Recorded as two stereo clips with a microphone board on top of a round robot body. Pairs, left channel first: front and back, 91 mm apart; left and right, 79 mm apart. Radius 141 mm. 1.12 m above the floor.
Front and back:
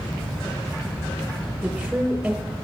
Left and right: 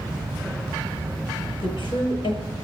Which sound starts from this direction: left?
A woman speaking, at 1.6 s.